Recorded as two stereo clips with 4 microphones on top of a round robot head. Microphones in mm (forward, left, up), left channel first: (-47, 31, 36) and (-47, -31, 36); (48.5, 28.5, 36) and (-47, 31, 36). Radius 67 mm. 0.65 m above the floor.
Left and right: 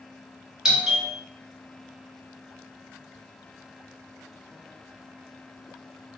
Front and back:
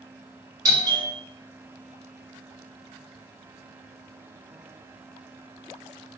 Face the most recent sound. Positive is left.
turn(degrees=-160)